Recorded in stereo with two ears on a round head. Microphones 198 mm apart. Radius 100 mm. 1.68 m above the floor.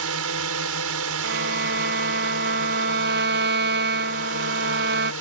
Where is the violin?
50° right (ahead or behind).